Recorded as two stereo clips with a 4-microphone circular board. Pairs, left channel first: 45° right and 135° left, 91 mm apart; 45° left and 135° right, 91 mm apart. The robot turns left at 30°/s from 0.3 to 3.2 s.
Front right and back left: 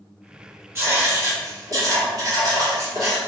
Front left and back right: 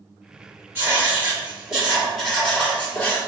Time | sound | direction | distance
0.8 | writing | 175° left | 1.8 m